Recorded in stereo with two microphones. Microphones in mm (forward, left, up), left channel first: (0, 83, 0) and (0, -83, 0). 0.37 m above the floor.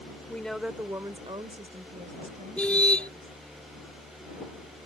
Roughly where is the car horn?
Centre.